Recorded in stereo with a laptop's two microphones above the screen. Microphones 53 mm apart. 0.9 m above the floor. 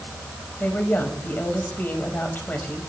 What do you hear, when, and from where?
0.6 s a woman speaking: 35° left (ahead or behind), 5.5 m